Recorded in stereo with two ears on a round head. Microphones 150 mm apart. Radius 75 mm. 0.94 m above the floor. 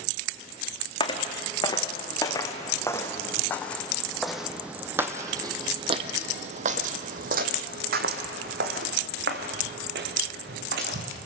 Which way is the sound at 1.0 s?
30° left (ahead or behind).